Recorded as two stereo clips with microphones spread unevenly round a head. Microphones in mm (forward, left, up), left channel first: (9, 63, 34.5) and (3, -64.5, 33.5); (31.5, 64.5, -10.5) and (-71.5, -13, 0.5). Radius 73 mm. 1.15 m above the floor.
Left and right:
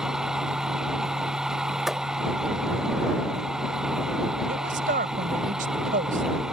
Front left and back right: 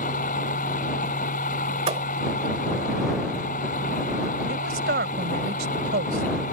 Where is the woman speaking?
120° right.